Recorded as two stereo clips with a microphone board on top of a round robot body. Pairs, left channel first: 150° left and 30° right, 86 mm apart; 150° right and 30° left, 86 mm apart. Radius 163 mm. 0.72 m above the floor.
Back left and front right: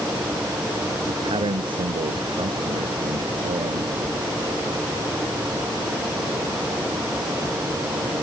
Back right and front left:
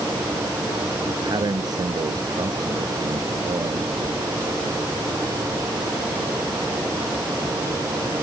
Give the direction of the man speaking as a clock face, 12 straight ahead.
12 o'clock.